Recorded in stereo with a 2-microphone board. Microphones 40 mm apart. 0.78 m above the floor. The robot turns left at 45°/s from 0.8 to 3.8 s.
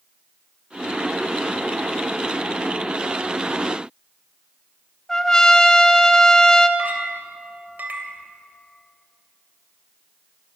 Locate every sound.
5.1 s a trumpet: 20° left (ahead or behind), 1.5 m
6.8 s a clink: 55° right (ahead or behind), 2.5 m